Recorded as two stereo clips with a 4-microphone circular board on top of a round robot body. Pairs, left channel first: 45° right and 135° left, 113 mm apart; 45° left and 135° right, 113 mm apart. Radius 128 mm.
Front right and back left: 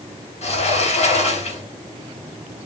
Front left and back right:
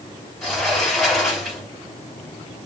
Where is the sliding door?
40° right, 1.7 m.